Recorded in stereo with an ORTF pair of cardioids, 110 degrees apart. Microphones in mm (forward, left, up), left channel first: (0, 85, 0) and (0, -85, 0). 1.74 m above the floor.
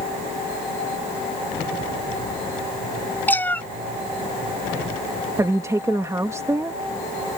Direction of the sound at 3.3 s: 10° left.